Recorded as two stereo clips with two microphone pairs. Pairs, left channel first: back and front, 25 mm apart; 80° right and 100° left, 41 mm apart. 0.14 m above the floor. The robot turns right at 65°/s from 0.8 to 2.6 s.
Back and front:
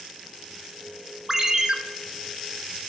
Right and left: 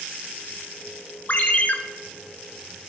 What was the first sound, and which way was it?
A ringtone, 65° right.